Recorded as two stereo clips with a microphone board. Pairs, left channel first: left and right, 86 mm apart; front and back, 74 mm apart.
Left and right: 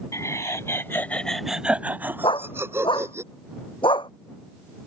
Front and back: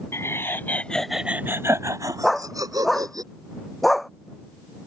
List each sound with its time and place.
0.1 s laughter: 45° left; by 3.2 s 145° right
2.2 s a dog barking: 90° left